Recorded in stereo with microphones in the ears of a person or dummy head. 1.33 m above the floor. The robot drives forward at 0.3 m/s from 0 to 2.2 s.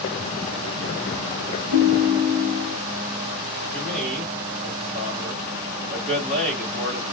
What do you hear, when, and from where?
1.7 s a ringtone: 65° right (ahead or behind), 1.2 m; by 2.8 s 55° right (ahead or behind), 1.3 m
3.7 s a man speaking: centre (ahead or behind), 2.5 m